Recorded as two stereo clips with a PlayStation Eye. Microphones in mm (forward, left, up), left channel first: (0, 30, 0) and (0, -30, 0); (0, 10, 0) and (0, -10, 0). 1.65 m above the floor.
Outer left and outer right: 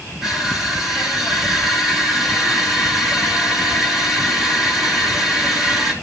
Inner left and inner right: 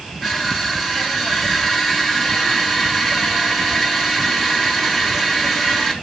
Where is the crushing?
10° right (ahead or behind), 3 m.